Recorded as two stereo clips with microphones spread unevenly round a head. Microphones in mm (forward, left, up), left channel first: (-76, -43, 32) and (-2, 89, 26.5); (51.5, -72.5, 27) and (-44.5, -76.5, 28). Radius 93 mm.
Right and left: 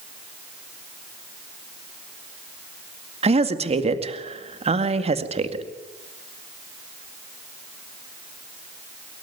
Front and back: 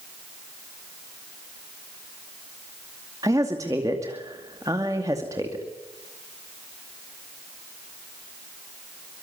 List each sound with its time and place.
3.2 s a woman speaking: 110° left, 2 m